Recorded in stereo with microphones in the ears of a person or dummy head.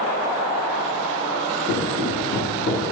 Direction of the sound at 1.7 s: 40° left (ahead or behind).